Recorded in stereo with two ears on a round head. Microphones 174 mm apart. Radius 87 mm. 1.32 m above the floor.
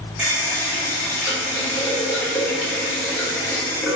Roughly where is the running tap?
Centre.